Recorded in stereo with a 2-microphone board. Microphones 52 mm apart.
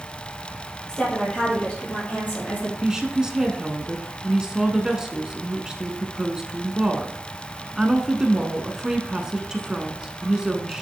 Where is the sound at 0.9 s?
15° left (ahead or behind), 3.5 m; by 2.7 s 40° left (ahead or behind), 4.5 m.